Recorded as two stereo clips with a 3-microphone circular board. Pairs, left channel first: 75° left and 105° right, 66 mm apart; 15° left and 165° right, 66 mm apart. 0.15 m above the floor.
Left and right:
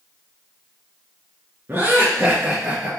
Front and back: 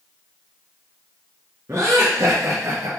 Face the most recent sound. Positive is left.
turn(degrees=-170)